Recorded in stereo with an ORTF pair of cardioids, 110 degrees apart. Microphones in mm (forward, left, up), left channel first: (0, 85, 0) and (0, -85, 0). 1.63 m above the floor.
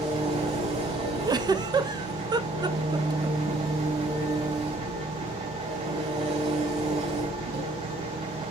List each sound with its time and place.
0.0 s an engine running: 40° right, 3.5 m
1.2 s a giggle: 25° right, 0.8 m